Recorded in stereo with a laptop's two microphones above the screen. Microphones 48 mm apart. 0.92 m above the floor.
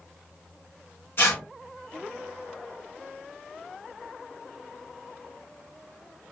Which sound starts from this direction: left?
Tearing paper, at 1.2 s.